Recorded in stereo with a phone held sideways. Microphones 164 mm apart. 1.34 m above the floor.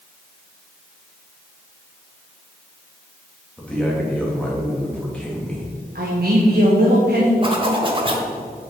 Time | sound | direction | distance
3.6 | a man speaking | 5° left (ahead or behind) | 2 m
6.0 | a man speaking | 70° right (ahead or behind) | 1.4 m
7.4 | a zipper | 35° right (ahead or behind) | 1.2 m